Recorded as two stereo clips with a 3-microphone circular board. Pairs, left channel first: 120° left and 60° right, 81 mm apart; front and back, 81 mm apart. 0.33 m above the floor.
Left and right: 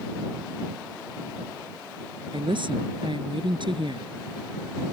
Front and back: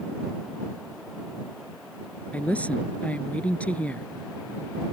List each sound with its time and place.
2.3 s a woman speaking: 75° right